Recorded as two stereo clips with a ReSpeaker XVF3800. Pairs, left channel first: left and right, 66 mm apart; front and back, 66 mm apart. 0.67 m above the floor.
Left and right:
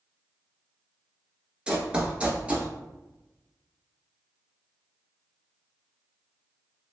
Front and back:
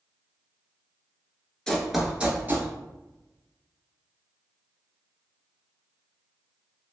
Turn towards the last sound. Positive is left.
turn(degrees=-150)